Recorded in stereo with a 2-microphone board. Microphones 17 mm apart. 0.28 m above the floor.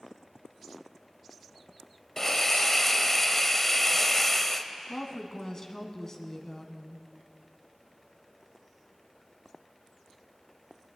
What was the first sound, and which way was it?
A hiss, 15° left (ahead or behind).